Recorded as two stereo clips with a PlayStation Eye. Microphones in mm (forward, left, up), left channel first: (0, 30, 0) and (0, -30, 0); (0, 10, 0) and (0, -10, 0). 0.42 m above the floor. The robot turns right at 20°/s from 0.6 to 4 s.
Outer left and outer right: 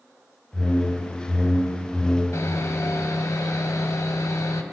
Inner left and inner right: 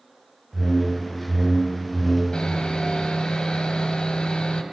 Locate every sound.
0.5 s a whoosh: 25° right, 4 m; by 2.2 s 10° left, 4 m
2.3 s sawing: 65° left, 1.8 m; by 4.6 s 100° left, 1.8 m